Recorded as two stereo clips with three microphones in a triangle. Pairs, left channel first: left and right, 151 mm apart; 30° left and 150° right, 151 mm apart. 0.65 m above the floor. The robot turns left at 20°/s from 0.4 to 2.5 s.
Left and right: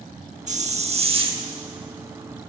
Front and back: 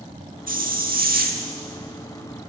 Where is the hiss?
130° right, 0.7 m; by 1.4 s 150° right, 0.7 m.